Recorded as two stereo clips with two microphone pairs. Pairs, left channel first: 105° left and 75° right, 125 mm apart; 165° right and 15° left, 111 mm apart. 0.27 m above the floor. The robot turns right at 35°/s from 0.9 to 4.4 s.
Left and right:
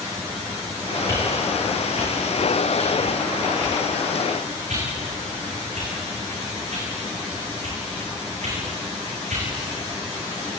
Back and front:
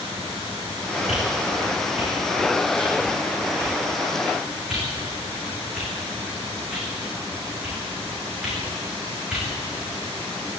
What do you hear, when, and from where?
1.1 s a whoosh: 175° left, 9.5 m; by 9.4 s 70° right, 9.5 m